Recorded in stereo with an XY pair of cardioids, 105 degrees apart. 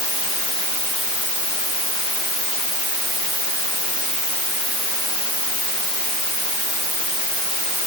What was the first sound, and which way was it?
Only background noise.